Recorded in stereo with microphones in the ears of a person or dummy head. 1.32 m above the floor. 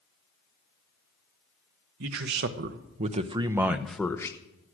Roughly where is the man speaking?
Right.